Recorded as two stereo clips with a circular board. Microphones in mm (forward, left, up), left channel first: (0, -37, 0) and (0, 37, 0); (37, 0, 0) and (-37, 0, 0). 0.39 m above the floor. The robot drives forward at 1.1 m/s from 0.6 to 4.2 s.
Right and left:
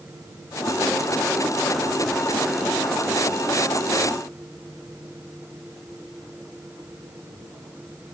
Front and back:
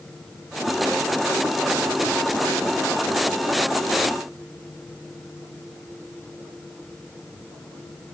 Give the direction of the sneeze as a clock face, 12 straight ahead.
No sneeze in this recording.